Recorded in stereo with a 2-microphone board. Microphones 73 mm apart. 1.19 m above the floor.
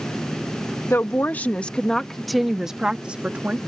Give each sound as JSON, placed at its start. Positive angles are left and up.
{"t": 0.9, "sound": "a woman speaking", "side_deg": 35}